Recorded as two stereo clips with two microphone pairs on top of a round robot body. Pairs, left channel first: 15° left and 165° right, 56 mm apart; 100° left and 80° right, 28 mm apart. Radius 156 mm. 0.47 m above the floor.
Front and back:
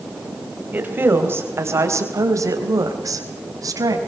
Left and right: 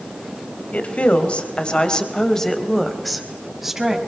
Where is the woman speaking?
135° left, 4 m; by 4.0 s 160° right, 5 m.